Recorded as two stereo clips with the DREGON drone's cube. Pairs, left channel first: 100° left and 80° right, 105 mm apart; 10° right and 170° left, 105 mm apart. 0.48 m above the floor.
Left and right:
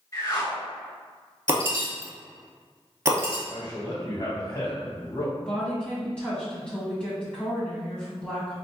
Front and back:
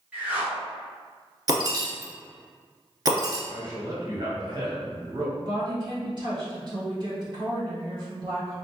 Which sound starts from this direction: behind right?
Breaking glass, at 1.5 s.